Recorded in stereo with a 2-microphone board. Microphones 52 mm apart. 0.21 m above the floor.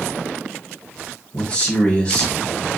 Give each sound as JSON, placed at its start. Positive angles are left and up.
{"t": 1.3, "sound": "a man speaking", "side_deg": 25, "distance_m": 1.1}